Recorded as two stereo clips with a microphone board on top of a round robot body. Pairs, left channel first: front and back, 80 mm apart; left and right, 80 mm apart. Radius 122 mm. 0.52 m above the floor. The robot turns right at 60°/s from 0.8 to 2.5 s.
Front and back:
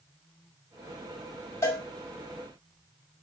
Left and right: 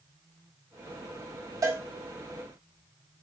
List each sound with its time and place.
1.6 s a cowbell: 55° right, 2 m; by 1.8 s 40° right, 2 m